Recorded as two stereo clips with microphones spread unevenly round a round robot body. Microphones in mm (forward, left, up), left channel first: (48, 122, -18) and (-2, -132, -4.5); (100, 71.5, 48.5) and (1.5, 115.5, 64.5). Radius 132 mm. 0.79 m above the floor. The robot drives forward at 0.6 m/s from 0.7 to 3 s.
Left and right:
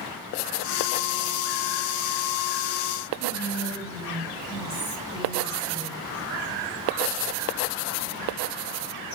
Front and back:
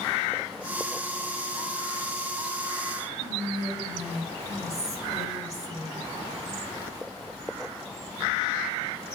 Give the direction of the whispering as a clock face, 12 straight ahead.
6 o'clock.